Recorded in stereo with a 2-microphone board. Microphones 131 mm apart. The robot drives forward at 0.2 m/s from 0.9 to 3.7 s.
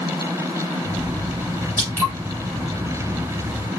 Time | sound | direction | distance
1.8 | dripping | 20° right (ahead or behind) | 4 m